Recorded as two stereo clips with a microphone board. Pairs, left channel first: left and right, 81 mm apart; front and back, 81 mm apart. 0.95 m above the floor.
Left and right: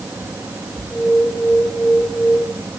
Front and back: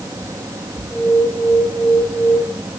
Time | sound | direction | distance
0.9 | an alarm | 10° left | 8.5 m